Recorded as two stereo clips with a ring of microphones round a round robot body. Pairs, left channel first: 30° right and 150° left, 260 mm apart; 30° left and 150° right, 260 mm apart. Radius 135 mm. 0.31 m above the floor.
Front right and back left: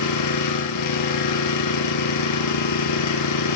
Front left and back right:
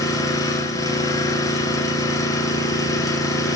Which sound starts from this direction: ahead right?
An engine running, at 0.0 s.